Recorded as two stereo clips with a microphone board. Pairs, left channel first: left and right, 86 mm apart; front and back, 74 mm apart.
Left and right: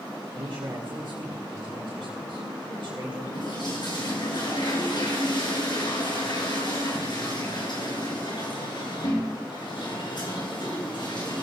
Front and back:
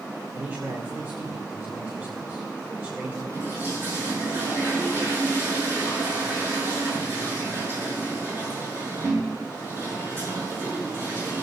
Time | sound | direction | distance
0.3 | a man speaking | 115° right | 3 m
3.3 | a toilet flushing | 120° left | 6.5 m